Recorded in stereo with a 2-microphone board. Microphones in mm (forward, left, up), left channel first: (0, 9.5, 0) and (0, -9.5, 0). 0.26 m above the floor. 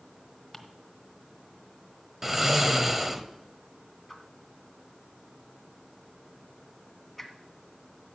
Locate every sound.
0.5 s ticking: 15° left (ahead or behind), 1.2 m
2.2 s snoring: 15° right (ahead or behind), 0.9 m
4.1 s a whoosh: 10° left (ahead or behind), 1.3 m